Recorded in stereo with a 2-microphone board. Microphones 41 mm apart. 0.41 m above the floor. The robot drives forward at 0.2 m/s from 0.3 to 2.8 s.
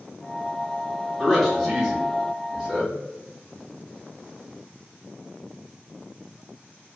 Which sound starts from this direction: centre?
A man speaking, at 1.2 s.